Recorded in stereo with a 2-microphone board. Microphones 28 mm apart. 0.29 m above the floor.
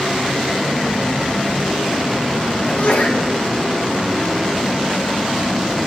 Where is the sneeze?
65° left (ahead or behind), 3.5 m.